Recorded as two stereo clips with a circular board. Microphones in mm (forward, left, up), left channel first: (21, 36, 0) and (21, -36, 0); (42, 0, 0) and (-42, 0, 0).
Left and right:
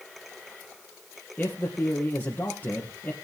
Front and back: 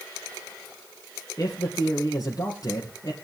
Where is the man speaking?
30° left, 2.5 m.